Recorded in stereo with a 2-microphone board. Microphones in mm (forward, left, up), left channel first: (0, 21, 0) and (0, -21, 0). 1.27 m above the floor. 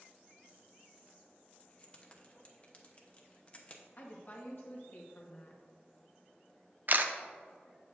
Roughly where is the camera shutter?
Right.